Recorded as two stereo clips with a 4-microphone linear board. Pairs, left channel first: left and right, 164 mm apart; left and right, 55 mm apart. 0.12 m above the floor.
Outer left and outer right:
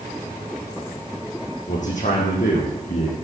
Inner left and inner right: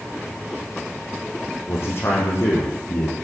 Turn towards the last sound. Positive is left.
turn(degrees=50)  # may be behind; listen again after turning